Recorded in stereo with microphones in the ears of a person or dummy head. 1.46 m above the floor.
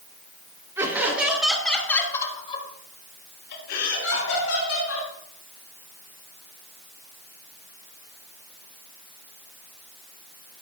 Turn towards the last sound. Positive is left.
turn(degrees=80)